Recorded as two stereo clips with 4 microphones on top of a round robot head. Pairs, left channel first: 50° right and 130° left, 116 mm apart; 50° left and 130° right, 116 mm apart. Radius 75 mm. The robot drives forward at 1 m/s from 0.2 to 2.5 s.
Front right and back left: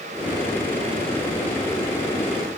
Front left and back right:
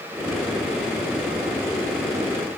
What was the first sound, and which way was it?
Only background noise.